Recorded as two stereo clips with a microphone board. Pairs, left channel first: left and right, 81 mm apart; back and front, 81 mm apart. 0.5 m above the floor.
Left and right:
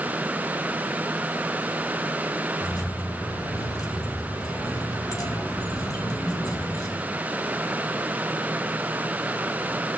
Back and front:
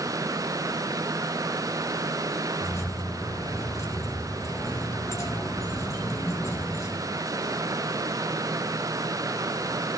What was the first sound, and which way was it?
Keys jangling, 130° left.